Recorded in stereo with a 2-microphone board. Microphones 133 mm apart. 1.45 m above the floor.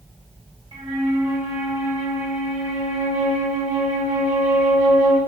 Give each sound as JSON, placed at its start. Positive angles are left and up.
{"t": 0.7, "sound": "a flute", "side_deg": -35, "distance_m": 1.5}